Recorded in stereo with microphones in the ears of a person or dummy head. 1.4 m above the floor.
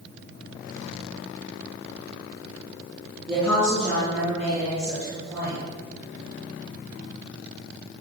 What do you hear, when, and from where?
3.3 s a woman speaking: 10° left (ahead or behind), 2.5 m